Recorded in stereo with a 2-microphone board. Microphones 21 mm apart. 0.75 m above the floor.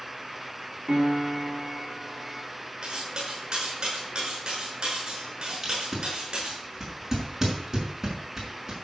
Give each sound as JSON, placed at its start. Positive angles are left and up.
{"t": 0.9, "sound": "a piano", "side_deg": -25, "distance_m": 5.5}
{"t": 2.8, "sound": "cutlery clinking", "side_deg": -40, "distance_m": 6.0}
{"t": 5.6, "sound": "tape being pulled", "side_deg": -15, "distance_m": 5.5}